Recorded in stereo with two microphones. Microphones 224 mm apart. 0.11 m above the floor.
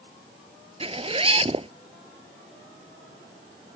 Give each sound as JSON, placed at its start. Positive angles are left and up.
{"t": 0.8, "sound": "a zipper", "side_deg": -30}